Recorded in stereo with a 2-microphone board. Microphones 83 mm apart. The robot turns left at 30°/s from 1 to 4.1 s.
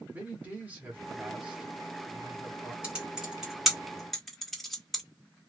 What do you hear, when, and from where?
0.1 s a man speaking: 150° right, 1.2 m; by 2.7 s 160° left, 1.2 m
2.8 s typing on a keyboard: 15° right (ahead or behind), 1.4 m; by 5.0 s centre (ahead or behind), 1.4 m